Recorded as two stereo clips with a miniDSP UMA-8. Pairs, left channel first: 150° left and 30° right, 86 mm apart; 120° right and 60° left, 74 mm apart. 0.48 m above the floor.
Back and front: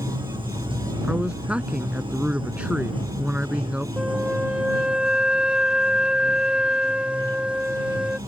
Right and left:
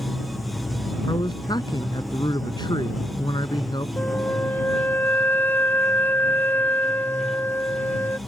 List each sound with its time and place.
0.0 s running water: 30° right
1.0 s a man speaking: 105° right
4.0 s a flute: 100° right